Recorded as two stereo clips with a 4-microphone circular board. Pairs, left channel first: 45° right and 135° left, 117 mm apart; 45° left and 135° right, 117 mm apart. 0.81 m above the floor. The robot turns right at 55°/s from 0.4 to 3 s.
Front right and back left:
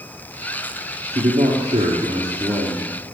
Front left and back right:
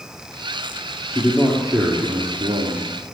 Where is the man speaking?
115° left, 1.6 m; by 2.9 s 150° right, 1.6 m.